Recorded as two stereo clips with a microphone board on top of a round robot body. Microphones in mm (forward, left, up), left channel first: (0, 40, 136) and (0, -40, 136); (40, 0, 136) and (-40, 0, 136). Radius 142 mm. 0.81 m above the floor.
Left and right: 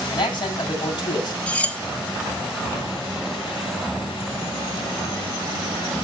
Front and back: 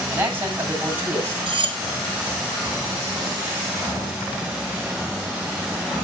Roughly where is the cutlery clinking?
Behind.